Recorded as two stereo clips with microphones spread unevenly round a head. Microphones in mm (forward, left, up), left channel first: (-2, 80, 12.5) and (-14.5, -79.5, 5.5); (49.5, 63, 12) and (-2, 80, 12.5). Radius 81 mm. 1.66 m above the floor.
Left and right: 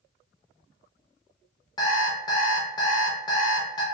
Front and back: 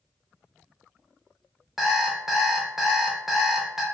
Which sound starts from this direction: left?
An alarm clock, at 1.8 s.